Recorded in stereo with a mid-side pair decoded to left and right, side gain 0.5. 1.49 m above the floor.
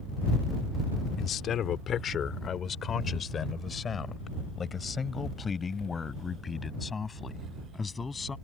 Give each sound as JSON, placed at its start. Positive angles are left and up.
{"t": 1.2, "sound": "a man speaking", "azimuth_deg": 60}